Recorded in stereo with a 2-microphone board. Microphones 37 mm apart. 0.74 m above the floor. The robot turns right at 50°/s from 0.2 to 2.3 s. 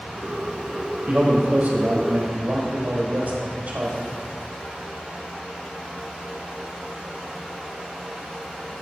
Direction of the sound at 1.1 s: 140° right.